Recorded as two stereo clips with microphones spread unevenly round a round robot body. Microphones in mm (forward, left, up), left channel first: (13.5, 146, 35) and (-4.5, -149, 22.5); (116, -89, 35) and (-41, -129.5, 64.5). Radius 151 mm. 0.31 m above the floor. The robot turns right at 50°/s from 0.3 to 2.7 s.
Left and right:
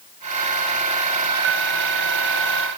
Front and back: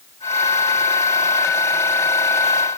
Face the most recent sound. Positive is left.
No sound to turn to.